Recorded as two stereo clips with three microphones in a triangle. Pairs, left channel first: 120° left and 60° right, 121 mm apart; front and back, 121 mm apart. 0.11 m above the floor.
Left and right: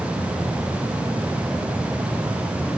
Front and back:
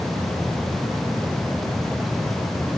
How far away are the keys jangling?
I don't hear keys jangling.